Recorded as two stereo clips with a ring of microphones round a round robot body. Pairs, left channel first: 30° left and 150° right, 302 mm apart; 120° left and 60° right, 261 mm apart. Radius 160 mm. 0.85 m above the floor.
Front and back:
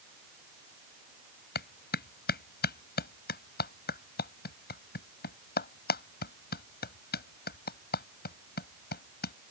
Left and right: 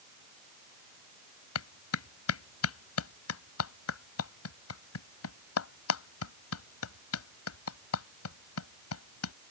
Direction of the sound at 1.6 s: 90° left.